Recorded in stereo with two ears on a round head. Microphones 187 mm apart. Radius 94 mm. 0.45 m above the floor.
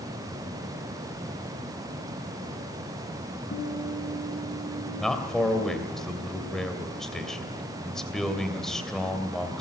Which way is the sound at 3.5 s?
45° left (ahead or behind).